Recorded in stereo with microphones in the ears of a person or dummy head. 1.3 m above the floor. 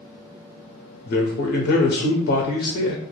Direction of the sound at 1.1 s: 45° left (ahead or behind).